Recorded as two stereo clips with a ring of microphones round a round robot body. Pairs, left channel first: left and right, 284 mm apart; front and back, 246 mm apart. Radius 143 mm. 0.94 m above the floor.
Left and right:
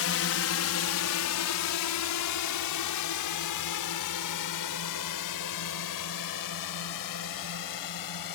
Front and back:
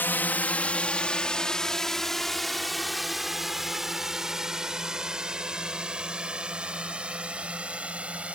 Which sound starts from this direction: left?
A drone, at 0.0 s.